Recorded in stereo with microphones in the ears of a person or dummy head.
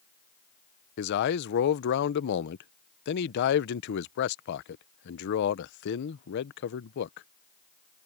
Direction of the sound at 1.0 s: 60° left (ahead or behind).